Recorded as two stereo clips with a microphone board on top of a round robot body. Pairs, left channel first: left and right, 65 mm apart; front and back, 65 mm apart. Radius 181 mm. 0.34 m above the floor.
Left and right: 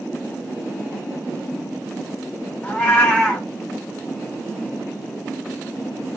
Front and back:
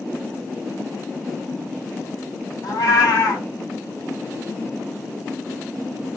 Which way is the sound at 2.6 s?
15° left.